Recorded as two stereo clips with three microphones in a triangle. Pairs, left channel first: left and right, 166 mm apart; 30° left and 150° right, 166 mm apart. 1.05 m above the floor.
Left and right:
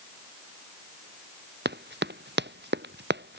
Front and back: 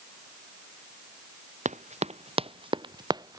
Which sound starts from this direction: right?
Running footsteps, at 1.6 s.